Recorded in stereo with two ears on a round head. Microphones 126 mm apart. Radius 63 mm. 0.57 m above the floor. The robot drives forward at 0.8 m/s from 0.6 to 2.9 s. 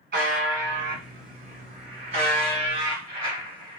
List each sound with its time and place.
0.1 s a buzzer: 85° right, 1.7 m; by 3.8 s 40° right (ahead or behind), 2.5 m